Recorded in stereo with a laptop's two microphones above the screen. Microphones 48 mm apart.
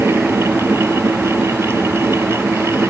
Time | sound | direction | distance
0.0 | a fan | 65° right (ahead or behind) | ?